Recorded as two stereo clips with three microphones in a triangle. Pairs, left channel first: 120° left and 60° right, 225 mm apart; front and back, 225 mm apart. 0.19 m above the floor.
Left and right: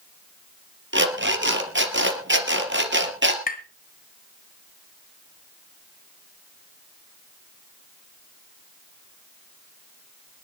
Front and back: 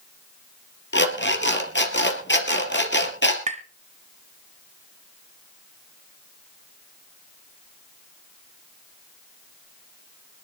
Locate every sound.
0.9 s an alarm clock: 30° right, 2.5 m
3.5 s tapping: 140° left, 1.1 m